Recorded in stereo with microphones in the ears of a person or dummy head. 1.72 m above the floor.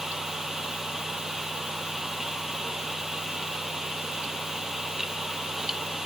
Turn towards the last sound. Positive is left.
No sound to turn to.